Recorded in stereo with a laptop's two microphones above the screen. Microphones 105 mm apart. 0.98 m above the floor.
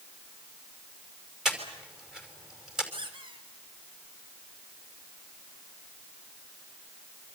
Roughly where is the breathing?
Centre.